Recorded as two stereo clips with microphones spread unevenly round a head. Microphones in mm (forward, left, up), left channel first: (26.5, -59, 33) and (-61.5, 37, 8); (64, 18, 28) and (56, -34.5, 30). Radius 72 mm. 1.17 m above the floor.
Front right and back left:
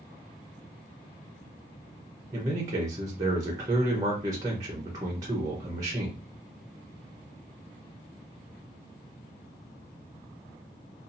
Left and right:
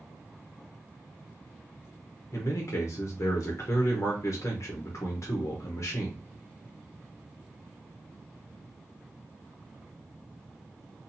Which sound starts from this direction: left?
A man speaking, at 2.3 s.